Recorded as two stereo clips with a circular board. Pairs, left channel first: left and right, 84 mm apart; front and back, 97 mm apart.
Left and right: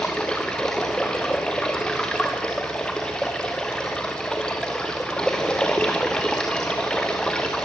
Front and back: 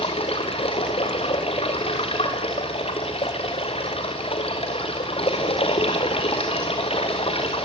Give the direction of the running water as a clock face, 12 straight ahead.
12 o'clock.